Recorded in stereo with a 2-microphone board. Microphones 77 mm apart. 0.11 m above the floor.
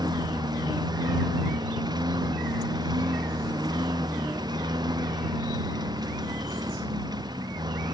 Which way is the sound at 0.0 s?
75° right (ahead or behind).